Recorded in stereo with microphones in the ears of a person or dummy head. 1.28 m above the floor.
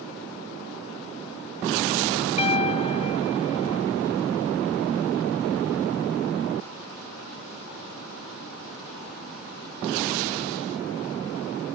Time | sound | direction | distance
2.4 | a piano | 35° left (ahead or behind) | ?